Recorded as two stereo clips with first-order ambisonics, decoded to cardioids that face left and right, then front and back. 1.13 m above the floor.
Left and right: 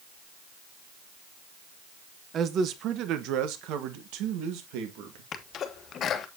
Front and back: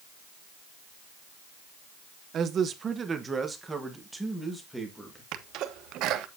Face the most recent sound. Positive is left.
turn(degrees=145)